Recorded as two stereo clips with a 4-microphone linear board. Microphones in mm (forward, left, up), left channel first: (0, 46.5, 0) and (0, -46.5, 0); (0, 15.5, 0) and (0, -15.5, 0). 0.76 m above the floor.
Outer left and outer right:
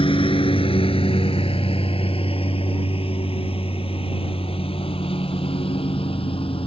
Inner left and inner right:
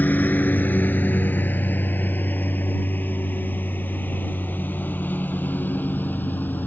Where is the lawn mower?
75° left (ahead or behind).